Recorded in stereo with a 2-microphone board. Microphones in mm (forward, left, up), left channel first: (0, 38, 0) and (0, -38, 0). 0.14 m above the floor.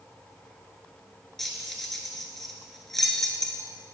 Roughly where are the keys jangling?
Centre.